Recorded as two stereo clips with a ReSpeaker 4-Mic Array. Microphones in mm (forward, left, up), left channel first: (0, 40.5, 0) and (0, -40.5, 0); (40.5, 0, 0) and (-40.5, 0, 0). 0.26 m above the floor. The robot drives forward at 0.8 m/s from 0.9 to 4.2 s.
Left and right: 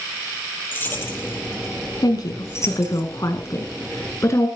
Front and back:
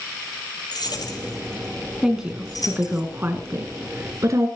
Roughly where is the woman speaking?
Left.